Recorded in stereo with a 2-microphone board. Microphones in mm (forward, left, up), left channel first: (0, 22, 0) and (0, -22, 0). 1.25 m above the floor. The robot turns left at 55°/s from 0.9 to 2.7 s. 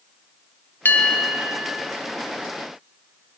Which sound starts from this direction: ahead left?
A bell, at 0.8 s.